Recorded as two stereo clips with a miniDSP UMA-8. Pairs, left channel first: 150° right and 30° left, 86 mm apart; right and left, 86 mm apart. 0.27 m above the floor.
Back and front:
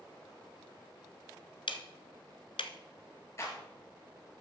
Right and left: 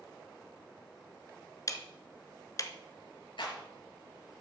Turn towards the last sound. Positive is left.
turn(degrees=-100)